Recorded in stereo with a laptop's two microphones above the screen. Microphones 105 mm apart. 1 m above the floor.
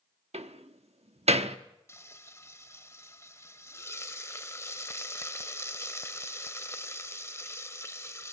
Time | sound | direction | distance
0.3 | a door slam | 80° right | 1.2 m
1.9 | frying | 25° left (ahead or behind) | 0.8 m